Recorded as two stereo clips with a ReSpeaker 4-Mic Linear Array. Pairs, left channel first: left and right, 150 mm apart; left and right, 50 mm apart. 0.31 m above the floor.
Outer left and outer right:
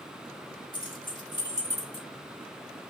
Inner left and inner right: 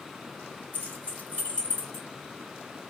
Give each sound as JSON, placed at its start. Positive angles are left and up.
{"t": 0.7, "sound": "keys jangling", "side_deg": 35, "distance_m": 1.1}